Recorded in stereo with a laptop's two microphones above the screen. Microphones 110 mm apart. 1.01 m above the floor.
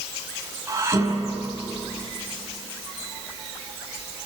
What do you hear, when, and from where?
0.7 s dishes clattering: 25° right (ahead or behind), 5 m